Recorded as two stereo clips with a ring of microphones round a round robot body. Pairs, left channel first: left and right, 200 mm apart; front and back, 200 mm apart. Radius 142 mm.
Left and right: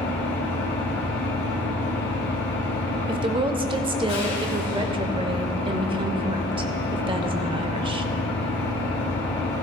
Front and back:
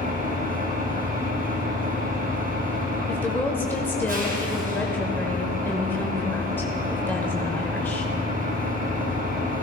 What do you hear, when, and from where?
0.0 s an engine running: 135° left, 2.5 m
3.1 s a woman speaking: 70° right, 0.9 m